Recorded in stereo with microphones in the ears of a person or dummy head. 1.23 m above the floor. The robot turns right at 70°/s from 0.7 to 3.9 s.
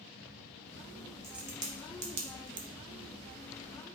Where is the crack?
Centre (ahead or behind), 0.9 m; by 2.7 s 55° right (ahead or behind), 0.9 m.